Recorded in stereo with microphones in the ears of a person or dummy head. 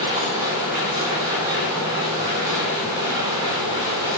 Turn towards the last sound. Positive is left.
turn(degrees=-20)  # may be behind; listen again after turning